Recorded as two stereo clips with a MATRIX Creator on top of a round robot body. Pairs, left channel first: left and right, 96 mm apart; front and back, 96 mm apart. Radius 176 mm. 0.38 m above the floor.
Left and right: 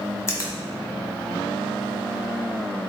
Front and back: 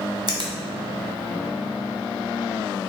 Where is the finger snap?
145° left, 1.2 m.